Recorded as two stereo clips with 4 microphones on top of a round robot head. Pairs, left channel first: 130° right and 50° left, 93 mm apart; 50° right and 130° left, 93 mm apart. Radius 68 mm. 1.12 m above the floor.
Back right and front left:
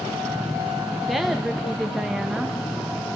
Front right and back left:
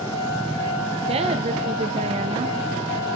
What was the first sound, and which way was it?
A woman speaking, 140° left.